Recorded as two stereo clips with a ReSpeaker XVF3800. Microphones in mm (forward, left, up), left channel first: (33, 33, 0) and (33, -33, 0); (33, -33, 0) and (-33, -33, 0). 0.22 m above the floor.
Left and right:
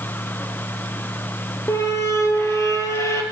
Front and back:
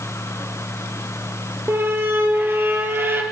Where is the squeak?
130° left, 2 m.